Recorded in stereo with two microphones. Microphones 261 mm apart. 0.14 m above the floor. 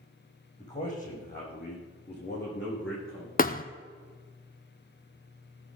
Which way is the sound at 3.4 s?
35° left (ahead or behind).